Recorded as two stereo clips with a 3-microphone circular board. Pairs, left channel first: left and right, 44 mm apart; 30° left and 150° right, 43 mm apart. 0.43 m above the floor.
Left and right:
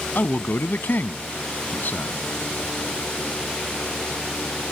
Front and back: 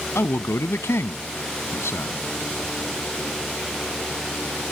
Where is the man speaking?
45° left.